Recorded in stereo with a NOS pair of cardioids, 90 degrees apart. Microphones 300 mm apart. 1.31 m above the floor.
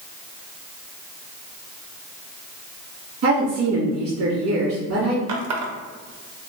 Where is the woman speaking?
55° right, 1.8 m.